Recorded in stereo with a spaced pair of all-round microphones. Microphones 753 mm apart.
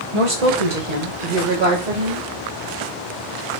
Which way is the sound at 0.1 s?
40° right (ahead or behind).